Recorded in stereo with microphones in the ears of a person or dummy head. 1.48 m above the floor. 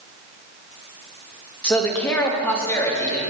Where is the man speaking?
5° left (ahead or behind), 1.5 m; by 3.2 s 10° left (ahead or behind), 2.5 m.